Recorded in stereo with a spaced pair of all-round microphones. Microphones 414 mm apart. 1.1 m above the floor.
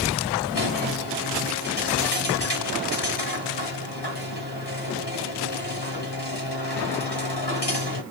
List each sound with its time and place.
0.5 s a squeak: 70° left (ahead or behind), 2.5 m